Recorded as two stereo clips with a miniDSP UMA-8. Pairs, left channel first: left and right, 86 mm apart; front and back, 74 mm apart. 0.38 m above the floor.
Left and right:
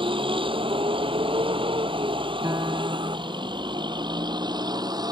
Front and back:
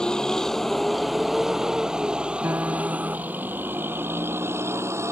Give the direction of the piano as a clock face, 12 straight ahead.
4 o'clock.